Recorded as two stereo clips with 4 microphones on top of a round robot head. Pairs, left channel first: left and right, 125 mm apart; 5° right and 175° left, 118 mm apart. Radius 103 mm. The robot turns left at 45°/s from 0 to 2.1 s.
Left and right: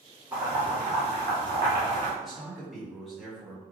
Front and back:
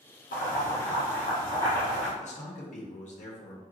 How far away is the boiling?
About 1.6 m.